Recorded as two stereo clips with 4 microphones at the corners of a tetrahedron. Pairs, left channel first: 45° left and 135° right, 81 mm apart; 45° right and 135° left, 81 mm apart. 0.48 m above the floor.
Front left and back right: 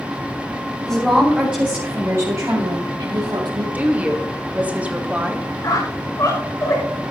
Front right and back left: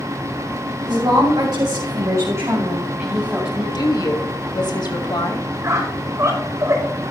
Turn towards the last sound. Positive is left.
turn(degrees=85)